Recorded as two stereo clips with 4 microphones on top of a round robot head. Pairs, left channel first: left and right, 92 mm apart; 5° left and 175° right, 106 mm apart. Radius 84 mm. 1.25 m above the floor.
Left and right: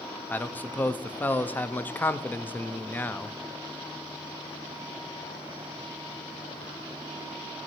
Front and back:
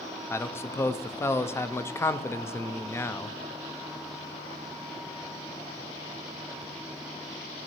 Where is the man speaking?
40° left, 0.5 m.